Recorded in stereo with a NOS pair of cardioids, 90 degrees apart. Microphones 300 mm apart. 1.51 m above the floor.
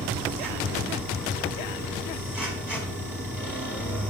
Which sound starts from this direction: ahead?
A machine running, at 0.0 s.